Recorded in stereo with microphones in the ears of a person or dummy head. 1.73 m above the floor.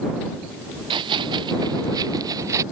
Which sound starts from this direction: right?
Running footsteps, at 0.9 s.